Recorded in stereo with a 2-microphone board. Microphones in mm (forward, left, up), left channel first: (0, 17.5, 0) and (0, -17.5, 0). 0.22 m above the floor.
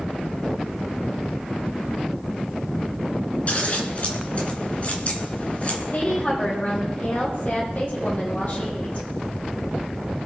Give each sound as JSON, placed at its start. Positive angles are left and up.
{"t": 3.5, "sound": "scissors", "side_deg": 40, "distance_m": 3.0}
{"t": 5.9, "sound": "a woman speaking", "side_deg": 45, "distance_m": 7.5}